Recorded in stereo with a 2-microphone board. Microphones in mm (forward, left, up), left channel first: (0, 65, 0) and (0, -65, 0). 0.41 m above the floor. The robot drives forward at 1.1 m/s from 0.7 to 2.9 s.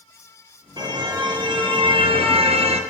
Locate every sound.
0.8 s a car horn: 35° right (ahead or behind), 5.5 m; by 2.8 s 55° right (ahead or behind), 4 m